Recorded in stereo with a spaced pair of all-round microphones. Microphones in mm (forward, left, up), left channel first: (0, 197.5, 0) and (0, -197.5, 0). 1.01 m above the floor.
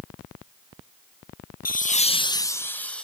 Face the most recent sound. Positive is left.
turn(degrees=0)  # may be behind; listen again after turning